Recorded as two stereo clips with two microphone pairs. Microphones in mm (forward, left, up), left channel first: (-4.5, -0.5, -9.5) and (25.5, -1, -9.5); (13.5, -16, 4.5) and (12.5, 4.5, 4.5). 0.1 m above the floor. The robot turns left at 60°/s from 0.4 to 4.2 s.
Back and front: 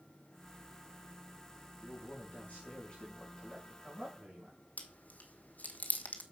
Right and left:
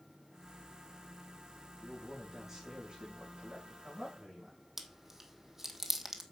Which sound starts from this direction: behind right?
A man speaking, at 1.8 s.